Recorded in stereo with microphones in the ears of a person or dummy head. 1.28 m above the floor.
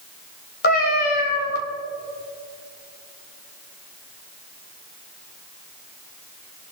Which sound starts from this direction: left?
A cat meowing, at 0.6 s.